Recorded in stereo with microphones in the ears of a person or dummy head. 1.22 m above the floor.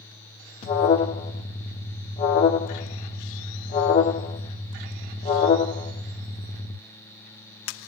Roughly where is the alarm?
Left.